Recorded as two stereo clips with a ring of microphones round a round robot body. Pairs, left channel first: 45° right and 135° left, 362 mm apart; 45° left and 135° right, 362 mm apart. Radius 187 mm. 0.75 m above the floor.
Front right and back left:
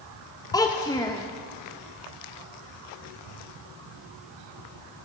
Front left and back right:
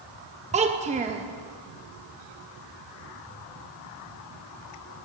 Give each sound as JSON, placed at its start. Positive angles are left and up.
{"t": 0.5, "sound": "a child speaking", "azimuth_deg": -105, "distance_m": 0.6}